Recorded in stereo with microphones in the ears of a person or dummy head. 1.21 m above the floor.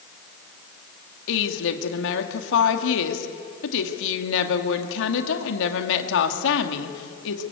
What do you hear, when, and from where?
1.3 s a woman speaking: 70° left (ahead or behind), 2 m